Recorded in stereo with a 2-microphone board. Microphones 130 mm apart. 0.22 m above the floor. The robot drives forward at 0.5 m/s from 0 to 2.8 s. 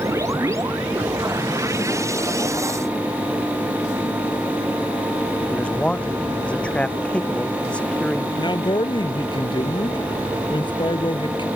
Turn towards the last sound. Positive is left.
turn(degrees=40)  # may be behind; listen again after turning